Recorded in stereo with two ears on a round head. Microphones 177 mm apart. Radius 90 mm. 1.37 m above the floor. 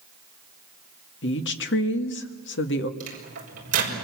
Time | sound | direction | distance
1.2 | a woman speaking | 65° left (ahead or behind) | 2.0 m
3.0 | a microwave | 40° right (ahead or behind) | 6 m